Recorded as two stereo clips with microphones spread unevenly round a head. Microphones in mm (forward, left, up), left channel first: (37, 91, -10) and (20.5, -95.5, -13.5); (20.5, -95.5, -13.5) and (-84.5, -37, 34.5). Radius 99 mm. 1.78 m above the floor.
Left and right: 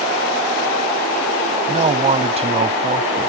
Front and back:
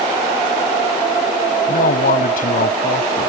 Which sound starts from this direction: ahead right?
A man speaking, at 1.7 s.